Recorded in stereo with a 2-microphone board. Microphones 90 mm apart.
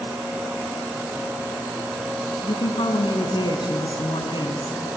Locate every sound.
2.4 s a woman speaking: 60° left (ahead or behind), 3 m